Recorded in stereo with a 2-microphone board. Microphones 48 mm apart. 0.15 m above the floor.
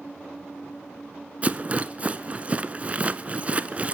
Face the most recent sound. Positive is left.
turn(degrees=-30)  # may be behind; listen again after turning